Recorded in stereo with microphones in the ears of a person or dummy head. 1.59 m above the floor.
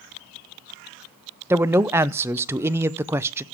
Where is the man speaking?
15° right (ahead or behind), 0.6 m.